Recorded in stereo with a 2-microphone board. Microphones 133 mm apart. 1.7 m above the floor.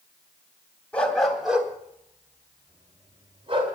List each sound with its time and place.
0.9 s a dog barking: 10° left (ahead or behind), 2.5 m; by 3.8 s 45° right (ahead or behind), 3.5 m